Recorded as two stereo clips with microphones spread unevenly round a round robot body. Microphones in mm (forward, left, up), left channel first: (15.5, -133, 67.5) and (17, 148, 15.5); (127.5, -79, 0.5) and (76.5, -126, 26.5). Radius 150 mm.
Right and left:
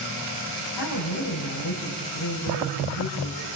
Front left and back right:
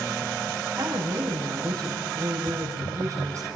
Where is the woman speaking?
95° right, 8.5 m.